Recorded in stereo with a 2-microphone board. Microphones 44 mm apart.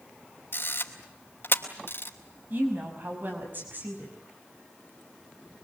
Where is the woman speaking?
50° right (ahead or behind), 5.5 m.